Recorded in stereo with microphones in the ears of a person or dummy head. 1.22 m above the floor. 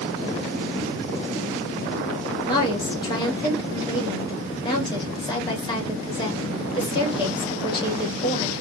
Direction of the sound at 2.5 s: 35° left (ahead or behind).